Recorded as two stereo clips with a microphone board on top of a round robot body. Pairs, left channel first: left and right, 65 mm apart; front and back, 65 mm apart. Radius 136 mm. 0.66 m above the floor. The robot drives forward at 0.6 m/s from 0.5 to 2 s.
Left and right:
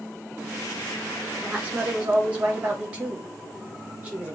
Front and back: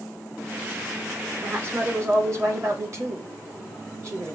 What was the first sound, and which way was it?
A woman speaking, 140° right.